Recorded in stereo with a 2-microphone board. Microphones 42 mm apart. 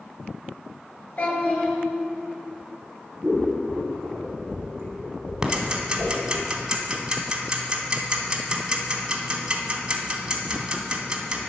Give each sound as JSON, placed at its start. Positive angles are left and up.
{"t": 1.2, "sound": "a child speaking", "side_deg": 45, "distance_m": 2.5}
{"t": 3.2, "sound": "scissors", "side_deg": -50, "distance_m": 3.0}
{"t": 5.4, "sound": "ticking", "side_deg": -20, "distance_m": 1.0}